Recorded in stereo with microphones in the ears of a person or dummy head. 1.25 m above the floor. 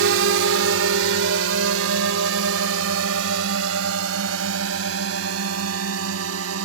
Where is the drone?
70° right (ahead or behind); by 6.7 s 85° right.